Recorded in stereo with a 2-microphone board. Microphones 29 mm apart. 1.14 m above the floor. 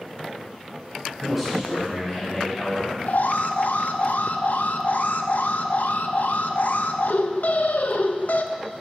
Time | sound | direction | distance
1.2 | a man speaking | centre (ahead or behind) | 6.5 m
3.1 | an alarm | 70° left (ahead or behind) | 0.8 m